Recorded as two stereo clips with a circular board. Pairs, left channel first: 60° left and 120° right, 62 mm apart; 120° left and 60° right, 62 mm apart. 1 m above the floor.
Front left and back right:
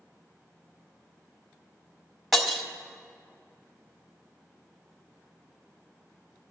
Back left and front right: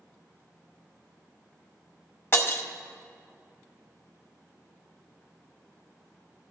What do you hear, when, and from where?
2.3 s breaking glass: 155° left, 1.0 m